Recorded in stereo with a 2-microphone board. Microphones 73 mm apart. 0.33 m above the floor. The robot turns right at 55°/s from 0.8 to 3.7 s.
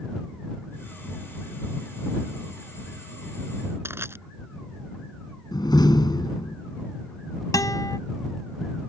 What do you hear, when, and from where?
3.9 s crushing: 35° right (ahead or behind)
5.5 s a door slam: 70° left (ahead or behind)
7.5 s a guitar: 55° left (ahead or behind)